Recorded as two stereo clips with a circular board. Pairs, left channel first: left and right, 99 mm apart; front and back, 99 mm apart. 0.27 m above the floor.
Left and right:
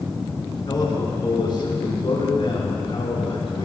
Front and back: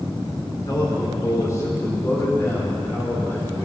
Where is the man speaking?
50° left, 4 m; by 3.6 s 65° left, 5 m.